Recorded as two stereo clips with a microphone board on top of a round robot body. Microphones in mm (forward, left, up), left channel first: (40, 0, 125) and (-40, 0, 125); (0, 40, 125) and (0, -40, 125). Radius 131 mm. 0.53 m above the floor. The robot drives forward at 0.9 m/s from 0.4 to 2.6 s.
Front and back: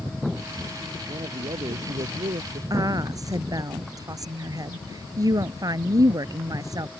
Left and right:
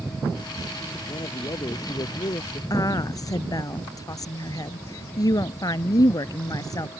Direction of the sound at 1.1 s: 140° left.